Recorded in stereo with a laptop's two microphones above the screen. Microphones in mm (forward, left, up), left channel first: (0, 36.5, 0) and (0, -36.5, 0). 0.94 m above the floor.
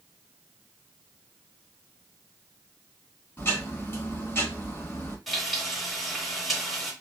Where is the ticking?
30° left (ahead or behind), 1.6 m.